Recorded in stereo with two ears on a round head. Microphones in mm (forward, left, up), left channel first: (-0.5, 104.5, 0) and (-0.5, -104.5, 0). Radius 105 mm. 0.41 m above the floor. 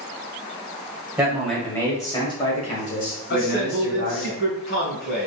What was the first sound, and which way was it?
A man speaking, 5° right (ahead or behind).